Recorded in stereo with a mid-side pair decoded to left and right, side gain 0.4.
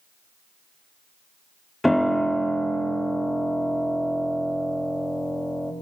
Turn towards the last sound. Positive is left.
turn(degrees=10)